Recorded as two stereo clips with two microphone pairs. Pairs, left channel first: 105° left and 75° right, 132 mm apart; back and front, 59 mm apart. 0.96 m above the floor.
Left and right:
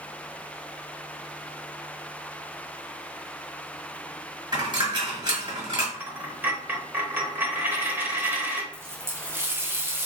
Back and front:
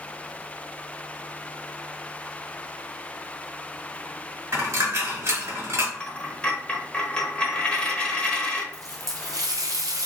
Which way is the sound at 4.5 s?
25° right.